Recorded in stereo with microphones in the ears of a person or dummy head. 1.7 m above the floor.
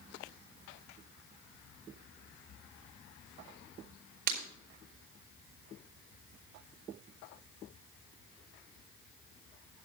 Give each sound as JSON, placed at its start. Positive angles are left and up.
{"t": 4.3, "sound": "breaking glass", "side_deg": -50, "distance_m": 4.0}